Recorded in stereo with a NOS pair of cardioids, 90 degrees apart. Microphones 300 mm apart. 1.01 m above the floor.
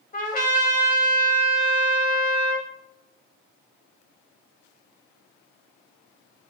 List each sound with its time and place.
0.1 s a trumpet: 25° left, 2.5 m